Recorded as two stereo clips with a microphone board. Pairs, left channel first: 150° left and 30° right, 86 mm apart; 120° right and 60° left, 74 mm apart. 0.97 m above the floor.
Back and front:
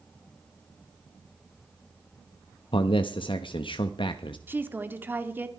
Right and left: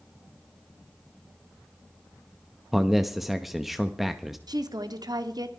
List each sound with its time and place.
2.7 s a man speaking: 145° left, 1.0 m
4.5 s a woman speaking: 35° left, 1.9 m